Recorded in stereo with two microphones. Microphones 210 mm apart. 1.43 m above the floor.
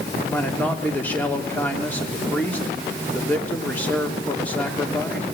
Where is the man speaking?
10° left (ahead or behind), 3 m.